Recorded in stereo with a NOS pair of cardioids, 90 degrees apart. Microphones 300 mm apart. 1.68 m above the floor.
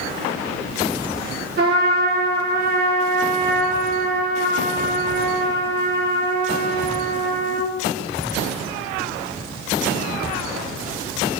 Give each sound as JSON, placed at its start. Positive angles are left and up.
{"t": 1.6, "sound": "a trumpet", "azimuth_deg": -35, "distance_m": 2.5}